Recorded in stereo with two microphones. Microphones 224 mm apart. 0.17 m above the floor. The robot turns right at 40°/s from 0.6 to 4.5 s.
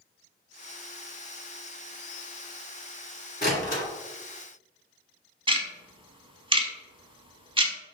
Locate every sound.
3.4 s a door slam: 45° left (ahead or behind), 1.4 m; by 3.8 s 40° left (ahead or behind), 1.4 m
5.5 s ticking: 25° right (ahead or behind), 0.7 m